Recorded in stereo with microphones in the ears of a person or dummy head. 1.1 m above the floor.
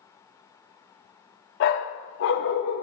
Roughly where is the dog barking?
Left.